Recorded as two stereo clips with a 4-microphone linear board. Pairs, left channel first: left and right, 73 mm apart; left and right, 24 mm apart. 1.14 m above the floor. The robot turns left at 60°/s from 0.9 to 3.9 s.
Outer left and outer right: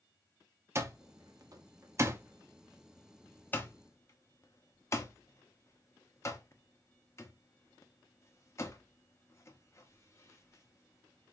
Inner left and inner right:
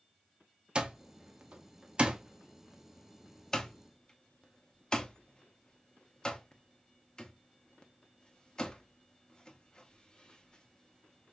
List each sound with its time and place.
0.8 s an alarm clock: 40° right (ahead or behind), 0.8 m; by 11.3 s 40° left (ahead or behind), 0.8 m